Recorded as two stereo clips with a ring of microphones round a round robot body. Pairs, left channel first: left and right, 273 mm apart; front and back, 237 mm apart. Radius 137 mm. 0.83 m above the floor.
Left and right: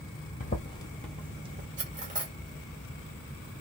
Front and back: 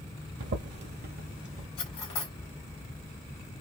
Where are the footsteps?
150° left, 1.2 m; by 1.7 s 130° right, 0.9 m.